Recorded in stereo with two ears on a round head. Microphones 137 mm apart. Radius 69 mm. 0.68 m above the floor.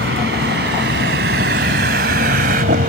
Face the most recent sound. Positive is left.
turn(degrees=-55)  # may be behind; listen again after turning